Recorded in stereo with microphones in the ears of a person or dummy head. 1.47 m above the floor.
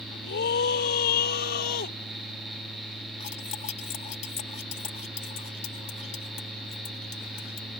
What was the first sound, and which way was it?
A scream, 55° left (ahead or behind).